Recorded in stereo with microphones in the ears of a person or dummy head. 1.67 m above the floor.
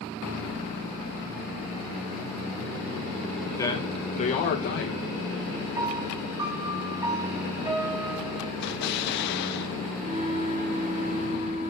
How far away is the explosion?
About 0.7 m.